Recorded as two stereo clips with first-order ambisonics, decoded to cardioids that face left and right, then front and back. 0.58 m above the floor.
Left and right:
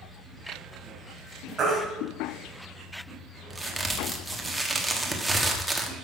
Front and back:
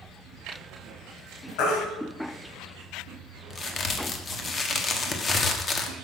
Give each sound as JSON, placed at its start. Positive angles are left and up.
{"t": 1.6, "sound": "a baby crying", "azimuth_deg": -20, "distance_m": 3.0}
{"t": 3.5, "sound": "a crack", "azimuth_deg": -15, "distance_m": 1.2}